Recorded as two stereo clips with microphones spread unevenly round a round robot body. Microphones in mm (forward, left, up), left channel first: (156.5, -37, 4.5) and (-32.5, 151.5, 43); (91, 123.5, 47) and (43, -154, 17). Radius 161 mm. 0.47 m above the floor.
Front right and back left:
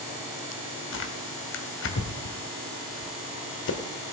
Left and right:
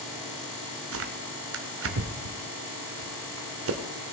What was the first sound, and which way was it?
Tearing paper, 75° right.